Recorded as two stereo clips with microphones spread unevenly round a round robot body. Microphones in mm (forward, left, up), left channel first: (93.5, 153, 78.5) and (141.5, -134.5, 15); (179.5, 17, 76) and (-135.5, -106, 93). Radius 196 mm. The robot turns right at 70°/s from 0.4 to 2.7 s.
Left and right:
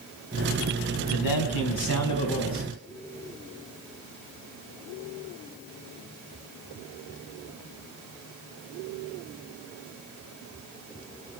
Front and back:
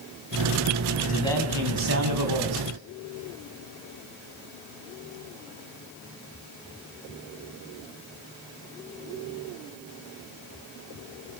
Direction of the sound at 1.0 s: 80° left.